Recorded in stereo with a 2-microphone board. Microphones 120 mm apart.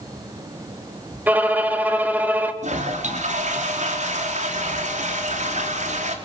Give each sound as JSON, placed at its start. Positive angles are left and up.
{"t": 1.3, "sound": "a violin", "side_deg": -15, "distance_m": 2.0}
{"t": 2.6, "sound": "a toilet flushing", "side_deg": -90, "distance_m": 4.0}